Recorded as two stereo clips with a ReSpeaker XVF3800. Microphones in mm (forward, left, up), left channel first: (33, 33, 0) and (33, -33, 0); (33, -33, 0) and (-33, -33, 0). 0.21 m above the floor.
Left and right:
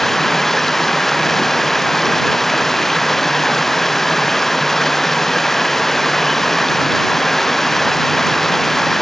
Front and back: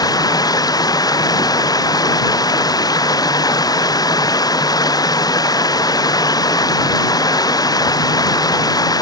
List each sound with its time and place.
0.0 s running water: 5° left